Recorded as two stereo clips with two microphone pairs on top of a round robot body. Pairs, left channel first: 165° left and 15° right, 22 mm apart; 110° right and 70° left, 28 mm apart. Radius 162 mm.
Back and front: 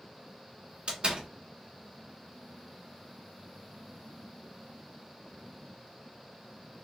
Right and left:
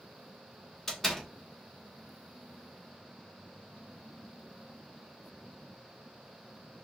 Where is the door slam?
30° right, 1.7 m.